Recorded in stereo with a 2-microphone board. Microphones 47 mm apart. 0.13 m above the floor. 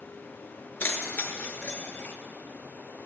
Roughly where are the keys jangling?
Left.